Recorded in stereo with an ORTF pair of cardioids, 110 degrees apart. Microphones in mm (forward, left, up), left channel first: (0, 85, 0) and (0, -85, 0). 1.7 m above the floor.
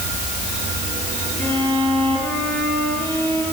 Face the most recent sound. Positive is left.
turn(degrees=10)